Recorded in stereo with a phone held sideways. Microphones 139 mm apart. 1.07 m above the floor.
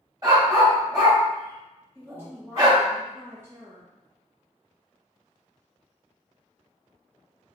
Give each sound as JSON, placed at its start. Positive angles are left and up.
{"t": 0.2, "sound": "a dog barking", "side_deg": -30, "distance_m": 1.7}
{"t": 1.9, "sound": "a woman speaking", "side_deg": -15, "distance_m": 0.7}